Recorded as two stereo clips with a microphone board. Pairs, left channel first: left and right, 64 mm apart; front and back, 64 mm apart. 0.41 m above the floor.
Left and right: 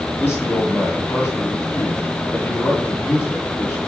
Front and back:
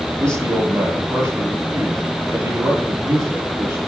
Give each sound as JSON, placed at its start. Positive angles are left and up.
{"t": 0.2, "sound": "a man speaking", "azimuth_deg": 150, "distance_m": 9.0}